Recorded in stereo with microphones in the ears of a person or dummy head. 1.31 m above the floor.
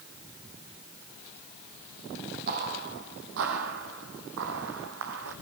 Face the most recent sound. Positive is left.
turn(degrees=-60)  # may be behind; listen again after turning